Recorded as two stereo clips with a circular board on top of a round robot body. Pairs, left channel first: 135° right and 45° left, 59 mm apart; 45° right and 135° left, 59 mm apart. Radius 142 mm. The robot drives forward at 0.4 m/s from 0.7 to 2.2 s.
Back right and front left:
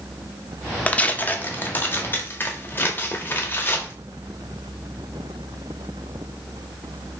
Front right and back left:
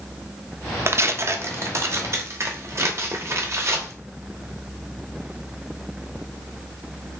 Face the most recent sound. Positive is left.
turn(degrees=175)